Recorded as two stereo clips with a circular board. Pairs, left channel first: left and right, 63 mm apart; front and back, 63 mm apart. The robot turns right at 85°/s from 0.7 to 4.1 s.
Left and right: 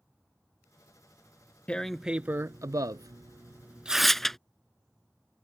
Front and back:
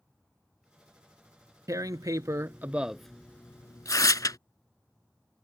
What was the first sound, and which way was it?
Tearing paper, 160° left.